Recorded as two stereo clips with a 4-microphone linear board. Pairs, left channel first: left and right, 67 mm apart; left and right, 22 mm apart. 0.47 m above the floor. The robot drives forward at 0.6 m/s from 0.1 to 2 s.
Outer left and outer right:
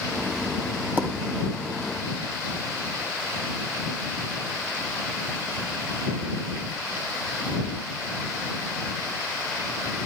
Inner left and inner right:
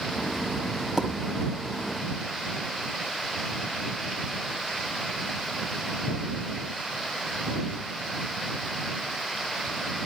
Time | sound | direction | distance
1.0 | a pop | 30° right (ahead or behind) | 1.8 m